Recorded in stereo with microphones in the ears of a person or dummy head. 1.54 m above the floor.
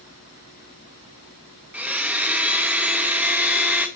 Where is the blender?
5° right (ahead or behind), 1.5 m.